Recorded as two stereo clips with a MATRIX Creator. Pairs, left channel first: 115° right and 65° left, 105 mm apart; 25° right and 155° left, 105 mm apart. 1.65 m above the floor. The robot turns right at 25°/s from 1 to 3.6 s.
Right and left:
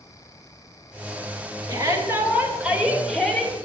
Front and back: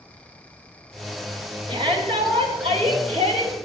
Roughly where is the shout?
Behind left.